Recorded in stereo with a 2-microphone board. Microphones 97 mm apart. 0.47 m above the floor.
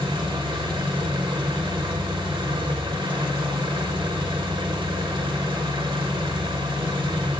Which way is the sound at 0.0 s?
60° right (ahead or behind).